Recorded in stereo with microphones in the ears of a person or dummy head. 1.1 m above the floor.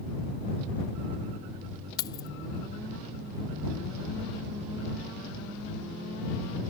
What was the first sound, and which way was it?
Keys jangling, 25° left (ahead or behind).